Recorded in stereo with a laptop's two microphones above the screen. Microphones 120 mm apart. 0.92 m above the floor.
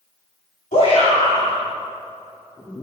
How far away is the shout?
About 2 m.